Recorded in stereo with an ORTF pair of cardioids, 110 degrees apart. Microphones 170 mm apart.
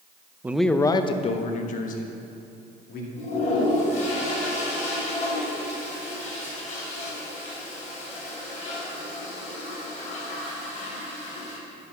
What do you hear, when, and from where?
0.4 s a man speaking: 10° right, 0.5 m; by 3.1 s 60° left, 2 m
3.2 s a toilet flushing: 45° left, 3.5 m